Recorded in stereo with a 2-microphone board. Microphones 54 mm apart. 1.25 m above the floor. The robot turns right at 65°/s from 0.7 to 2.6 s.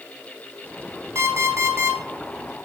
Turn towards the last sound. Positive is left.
turn(degrees=-15)